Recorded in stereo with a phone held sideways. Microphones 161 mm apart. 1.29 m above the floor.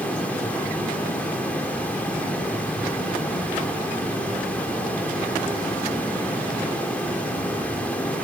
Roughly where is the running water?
Centre.